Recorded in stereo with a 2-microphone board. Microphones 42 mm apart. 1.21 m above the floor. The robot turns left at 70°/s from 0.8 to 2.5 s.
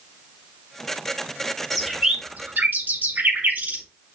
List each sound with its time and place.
1.7 s a bird: 10° left (ahead or behind), 2.5 m; by 3.8 s 45° right (ahead or behind), 2.5 m